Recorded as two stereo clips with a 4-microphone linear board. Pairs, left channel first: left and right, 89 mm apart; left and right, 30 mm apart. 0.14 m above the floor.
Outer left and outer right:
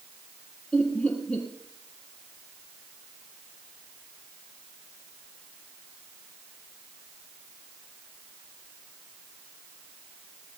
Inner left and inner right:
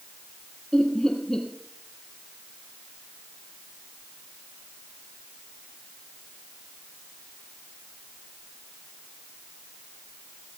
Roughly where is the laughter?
Centre.